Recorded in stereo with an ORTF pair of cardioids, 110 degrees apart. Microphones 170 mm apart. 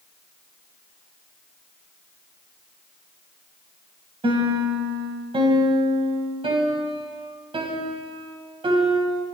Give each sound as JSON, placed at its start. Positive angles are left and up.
{"t": 4.2, "sound": "a piano", "azimuth_deg": -30, "distance_m": 6.5}